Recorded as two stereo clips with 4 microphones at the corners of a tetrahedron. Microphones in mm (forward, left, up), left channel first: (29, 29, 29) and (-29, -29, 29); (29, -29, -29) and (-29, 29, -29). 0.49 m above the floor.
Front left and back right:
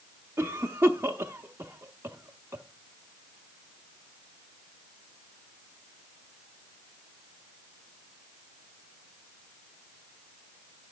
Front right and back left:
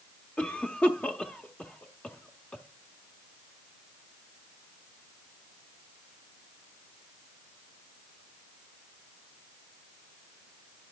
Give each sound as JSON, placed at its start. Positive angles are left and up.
{"t": 0.4, "sound": "a cough", "azimuth_deg": -105, "distance_m": 0.9}